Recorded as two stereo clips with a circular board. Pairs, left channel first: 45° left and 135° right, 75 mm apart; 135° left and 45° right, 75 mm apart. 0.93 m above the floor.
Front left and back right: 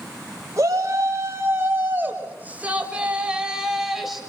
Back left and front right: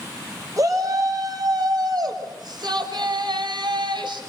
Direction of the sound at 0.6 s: 85° right.